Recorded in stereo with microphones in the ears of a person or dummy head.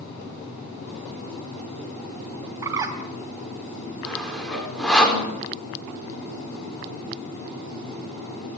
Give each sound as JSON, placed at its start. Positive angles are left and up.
{"t": 2.6, "sound": "a bird", "side_deg": -20, "distance_m": 2.5}
{"t": 4.0, "sound": "sawing", "side_deg": 5, "distance_m": 5.0}